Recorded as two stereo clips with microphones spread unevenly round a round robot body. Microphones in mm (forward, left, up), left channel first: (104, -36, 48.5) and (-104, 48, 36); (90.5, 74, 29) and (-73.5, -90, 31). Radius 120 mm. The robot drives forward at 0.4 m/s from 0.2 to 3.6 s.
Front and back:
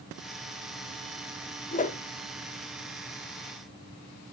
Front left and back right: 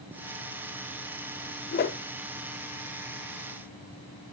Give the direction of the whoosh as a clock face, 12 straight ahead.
11 o'clock.